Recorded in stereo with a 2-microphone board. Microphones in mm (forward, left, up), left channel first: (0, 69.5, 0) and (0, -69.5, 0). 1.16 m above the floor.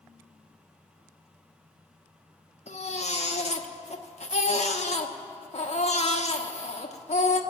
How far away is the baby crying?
About 0.9 m.